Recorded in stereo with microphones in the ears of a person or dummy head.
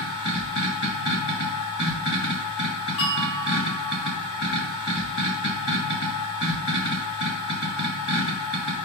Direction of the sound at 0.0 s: 70° left (ahead or behind).